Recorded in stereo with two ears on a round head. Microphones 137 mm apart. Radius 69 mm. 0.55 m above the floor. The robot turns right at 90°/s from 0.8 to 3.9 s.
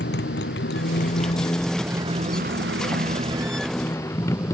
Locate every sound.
0.0 s a motorcycle: 85° left; by 4.5 s 20° left (ahead or behind)